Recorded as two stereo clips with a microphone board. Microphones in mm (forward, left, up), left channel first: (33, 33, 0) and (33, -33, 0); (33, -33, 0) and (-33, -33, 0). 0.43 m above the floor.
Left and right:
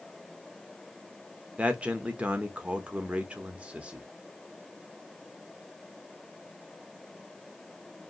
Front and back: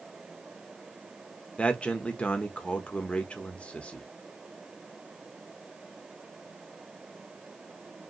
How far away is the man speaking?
About 0.8 m.